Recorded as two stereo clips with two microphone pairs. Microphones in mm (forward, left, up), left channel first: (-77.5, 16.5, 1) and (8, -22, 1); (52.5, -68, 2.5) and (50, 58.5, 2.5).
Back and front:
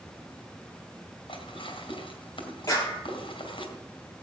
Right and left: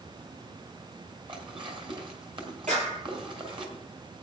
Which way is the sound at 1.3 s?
135° left.